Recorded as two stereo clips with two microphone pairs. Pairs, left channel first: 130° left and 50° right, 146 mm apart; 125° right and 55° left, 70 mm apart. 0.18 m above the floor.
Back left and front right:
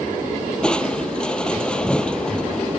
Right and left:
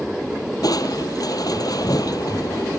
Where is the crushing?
145° right.